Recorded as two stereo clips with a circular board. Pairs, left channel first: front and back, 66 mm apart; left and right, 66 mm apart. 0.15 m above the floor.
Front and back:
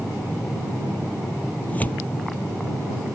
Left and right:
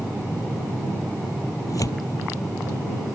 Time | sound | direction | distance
1.7 | tearing paper | 65° left | ?